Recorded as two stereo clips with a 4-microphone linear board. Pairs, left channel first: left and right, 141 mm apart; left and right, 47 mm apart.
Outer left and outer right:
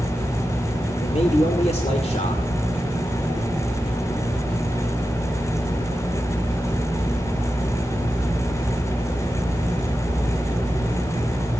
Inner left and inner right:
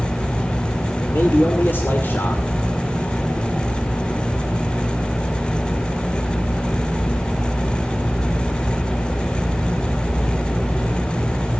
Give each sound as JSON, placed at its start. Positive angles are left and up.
{"t": 1.0, "sound": "a man speaking", "side_deg": 50, "distance_m": 2.5}